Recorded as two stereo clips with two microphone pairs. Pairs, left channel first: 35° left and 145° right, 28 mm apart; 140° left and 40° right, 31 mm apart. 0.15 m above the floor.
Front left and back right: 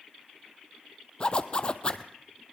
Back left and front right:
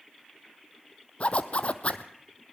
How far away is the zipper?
About 0.9 m.